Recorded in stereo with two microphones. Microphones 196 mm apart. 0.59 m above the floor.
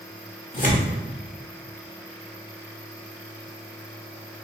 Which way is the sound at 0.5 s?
45° left (ahead or behind).